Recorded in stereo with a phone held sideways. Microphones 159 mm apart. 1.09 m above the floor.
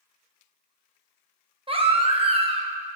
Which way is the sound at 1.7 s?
35° right (ahead or behind).